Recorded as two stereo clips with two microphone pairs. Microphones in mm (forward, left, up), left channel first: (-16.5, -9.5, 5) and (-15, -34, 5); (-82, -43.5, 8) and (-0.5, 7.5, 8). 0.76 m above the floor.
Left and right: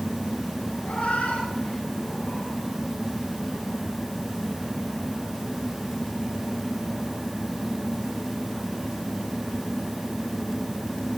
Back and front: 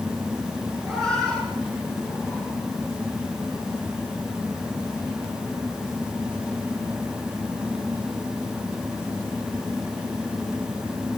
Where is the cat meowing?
125° left, 5.5 m; by 2.5 s 140° left, 4.5 m.